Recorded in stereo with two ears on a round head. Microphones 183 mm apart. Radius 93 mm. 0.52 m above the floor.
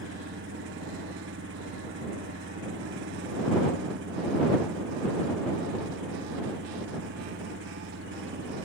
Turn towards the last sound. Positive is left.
turn(degrees=-60)  # may be behind; listen again after turning